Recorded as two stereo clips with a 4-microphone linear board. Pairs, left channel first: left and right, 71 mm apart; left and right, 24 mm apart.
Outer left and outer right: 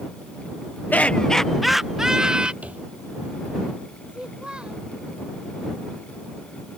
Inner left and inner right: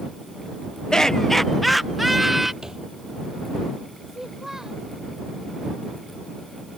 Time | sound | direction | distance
0.9 | laughter | 25° left (ahead or behind) | ?
2.6 | a thud | 20° right (ahead or behind) | ?
4.1 | a child speaking | 15° right (ahead or behind) | ?